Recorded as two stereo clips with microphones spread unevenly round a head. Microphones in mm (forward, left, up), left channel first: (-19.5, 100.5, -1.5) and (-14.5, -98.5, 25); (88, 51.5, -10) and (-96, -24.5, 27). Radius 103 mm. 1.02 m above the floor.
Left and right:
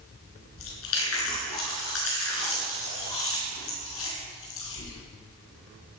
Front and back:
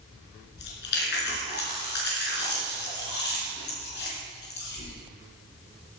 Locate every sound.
0.6 s chewing: 60° left, 4.5 m